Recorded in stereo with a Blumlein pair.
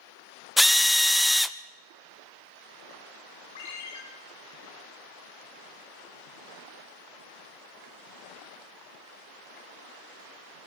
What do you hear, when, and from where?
0.6 s a drill: straight ahead, 0.7 m
3.5 s a ringtone: 60° left, 8.5 m